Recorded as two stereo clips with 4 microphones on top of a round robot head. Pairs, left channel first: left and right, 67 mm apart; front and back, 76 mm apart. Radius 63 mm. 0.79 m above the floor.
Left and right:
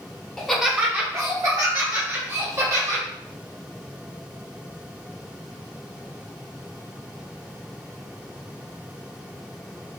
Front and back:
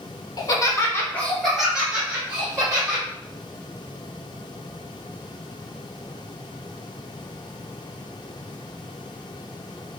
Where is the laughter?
5° left, 1.0 m; by 3.0 s 115° right, 2.5 m.